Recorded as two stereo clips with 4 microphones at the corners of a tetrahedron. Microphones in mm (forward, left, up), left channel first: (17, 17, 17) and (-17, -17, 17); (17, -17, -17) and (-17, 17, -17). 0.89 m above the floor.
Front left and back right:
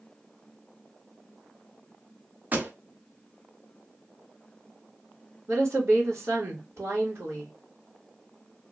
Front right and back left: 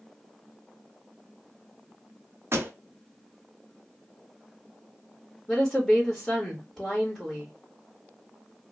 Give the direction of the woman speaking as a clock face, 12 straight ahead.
4 o'clock.